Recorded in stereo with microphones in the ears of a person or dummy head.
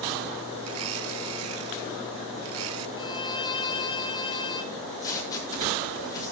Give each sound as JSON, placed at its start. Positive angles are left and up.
{"t": 0.6, "sound": "a blender", "side_deg": -85, "distance_m": 1.0}
{"t": 3.0, "sound": "a violin", "side_deg": 30, "distance_m": 2.0}
{"t": 4.7, "sound": "tape being pulled", "side_deg": 20, "distance_m": 5.0}